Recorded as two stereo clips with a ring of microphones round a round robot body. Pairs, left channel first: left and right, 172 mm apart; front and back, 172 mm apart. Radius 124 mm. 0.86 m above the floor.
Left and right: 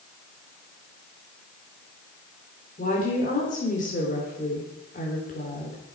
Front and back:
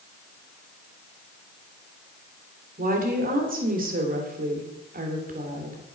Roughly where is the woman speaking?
Behind left.